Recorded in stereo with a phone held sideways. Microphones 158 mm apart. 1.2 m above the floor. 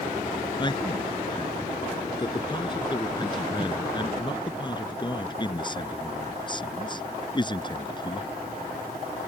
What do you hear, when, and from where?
0.6 s a man speaking: 30° left (ahead or behind)